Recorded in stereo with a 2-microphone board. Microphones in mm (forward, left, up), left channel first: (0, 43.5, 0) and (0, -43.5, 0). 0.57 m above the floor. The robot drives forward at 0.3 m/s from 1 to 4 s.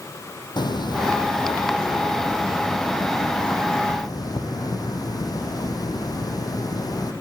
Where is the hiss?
60° left (ahead or behind), 4 m; by 7.1 s 50° left (ahead or behind), 4.5 m.